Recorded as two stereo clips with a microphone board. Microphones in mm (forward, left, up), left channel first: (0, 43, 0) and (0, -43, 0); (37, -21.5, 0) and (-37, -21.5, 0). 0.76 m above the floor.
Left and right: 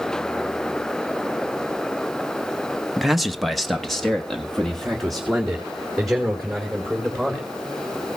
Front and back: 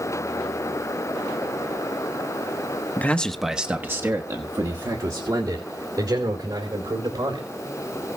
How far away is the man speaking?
About 0.9 m.